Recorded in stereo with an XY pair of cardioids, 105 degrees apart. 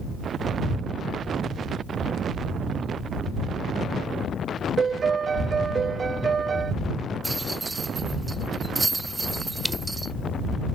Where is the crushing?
5° right.